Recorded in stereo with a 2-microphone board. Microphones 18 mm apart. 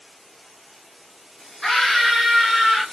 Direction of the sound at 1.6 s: 30° left (ahead or behind).